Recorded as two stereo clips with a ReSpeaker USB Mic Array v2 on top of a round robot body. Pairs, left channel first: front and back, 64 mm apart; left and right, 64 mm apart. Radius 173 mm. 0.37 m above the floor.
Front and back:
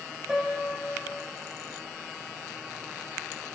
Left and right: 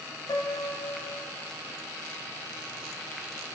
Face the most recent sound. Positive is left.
turn(degrees=100)